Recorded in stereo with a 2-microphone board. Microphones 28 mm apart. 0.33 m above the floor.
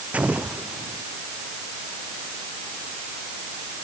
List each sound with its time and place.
0.1 s an explosion: 60° right (ahead or behind)